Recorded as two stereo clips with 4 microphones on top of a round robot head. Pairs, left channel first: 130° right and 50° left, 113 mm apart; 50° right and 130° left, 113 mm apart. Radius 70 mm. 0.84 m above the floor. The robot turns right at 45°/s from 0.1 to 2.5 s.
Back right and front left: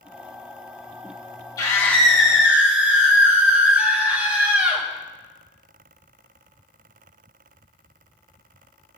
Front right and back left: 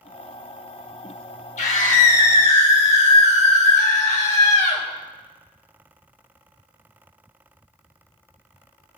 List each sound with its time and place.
1.6 s a scream: 65° right, 3 m; by 4.9 s 25° right, 3 m